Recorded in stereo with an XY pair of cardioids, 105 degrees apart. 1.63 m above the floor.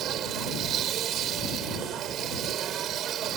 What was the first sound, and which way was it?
A machine running, 70° right.